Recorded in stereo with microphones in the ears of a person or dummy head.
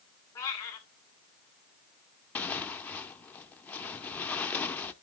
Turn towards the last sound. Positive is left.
turn(degrees=10)  # may be behind; listen again after turning